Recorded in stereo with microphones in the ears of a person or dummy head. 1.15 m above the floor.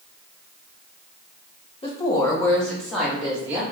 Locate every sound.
1.8 s a woman speaking: 30° left (ahead or behind), 0.8 m; by 3.6 s 10° right (ahead or behind), 1.4 m